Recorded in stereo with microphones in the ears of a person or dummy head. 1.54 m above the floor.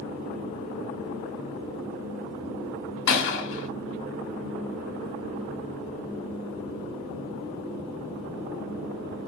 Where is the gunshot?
60° left (ahead or behind), 2.5 m.